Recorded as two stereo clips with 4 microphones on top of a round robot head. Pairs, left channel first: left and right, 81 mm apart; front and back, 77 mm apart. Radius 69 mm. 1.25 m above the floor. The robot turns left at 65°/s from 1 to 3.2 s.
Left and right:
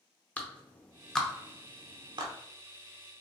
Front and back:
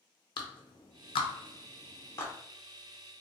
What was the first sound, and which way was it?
A clap, 15° left.